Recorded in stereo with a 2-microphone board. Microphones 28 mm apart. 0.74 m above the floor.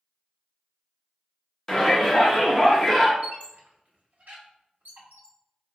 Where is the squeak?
80° right, 1.0 m.